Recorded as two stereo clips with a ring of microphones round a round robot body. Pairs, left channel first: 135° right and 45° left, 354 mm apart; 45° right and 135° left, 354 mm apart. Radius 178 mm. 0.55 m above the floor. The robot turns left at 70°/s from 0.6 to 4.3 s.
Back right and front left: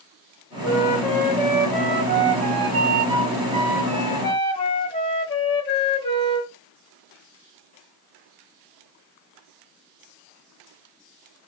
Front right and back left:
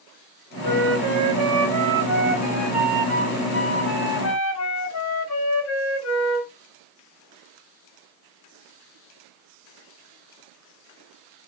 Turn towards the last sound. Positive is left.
turn(degrees=-65)